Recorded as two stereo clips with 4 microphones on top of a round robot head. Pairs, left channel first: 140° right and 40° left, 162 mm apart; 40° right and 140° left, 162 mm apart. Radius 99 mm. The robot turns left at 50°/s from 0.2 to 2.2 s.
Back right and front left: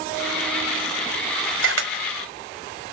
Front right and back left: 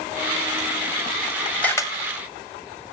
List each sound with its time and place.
1.6 s a camera shutter: 45° left, 1.6 m; by 1.9 s 30° left, 1.6 m